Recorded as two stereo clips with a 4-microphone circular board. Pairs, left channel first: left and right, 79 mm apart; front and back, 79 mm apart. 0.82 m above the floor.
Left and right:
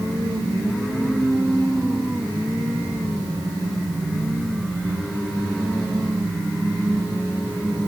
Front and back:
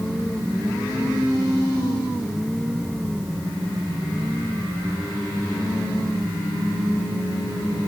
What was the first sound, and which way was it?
Only background noise.